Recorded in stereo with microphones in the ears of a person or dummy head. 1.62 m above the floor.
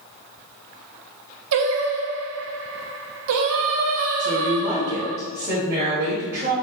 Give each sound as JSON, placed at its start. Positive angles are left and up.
{"t": 1.5, "sound": "singing", "side_deg": -65, "distance_m": 0.5}
{"t": 4.2, "sound": "a woman speaking", "side_deg": -35, "distance_m": 1.6}